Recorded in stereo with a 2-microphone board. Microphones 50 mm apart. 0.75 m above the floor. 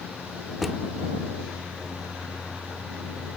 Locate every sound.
0.6 s a drawer: 5° right (ahead or behind)